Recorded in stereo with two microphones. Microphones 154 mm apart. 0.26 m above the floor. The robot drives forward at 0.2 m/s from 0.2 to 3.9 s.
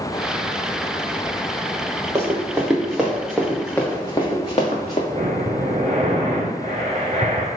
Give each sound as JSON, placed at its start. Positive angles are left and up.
{"t": 2.1, "sound": "running footsteps", "side_deg": -20, "distance_m": 1.3}
{"t": 5.1, "sound": "breathing", "side_deg": -50, "distance_m": 1.0}